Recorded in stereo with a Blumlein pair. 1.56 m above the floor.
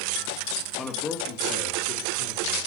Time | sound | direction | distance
0.7 | a man speaking | 10° left | 1.8 m